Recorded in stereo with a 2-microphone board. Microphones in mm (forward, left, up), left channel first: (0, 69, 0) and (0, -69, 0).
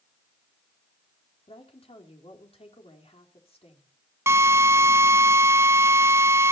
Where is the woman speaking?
50° left (ahead or behind), 4 m.